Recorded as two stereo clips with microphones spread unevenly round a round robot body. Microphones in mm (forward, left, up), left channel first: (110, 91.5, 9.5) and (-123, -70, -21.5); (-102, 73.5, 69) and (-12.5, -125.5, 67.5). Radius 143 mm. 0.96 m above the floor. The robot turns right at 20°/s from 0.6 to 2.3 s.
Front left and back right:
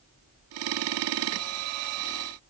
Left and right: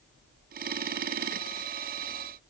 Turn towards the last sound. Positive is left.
No sound to turn to.